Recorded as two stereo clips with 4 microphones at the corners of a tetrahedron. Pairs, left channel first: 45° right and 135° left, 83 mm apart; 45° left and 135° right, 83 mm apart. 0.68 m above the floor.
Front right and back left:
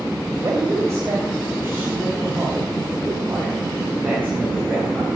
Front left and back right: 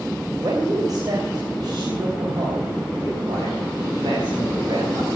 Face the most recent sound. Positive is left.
turn(degrees=-155)